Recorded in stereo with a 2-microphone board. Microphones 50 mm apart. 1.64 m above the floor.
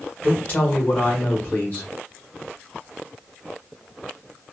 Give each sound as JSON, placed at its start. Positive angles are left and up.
{"t": 0.2, "sound": "a woman speaking", "side_deg": 30, "distance_m": 1.5}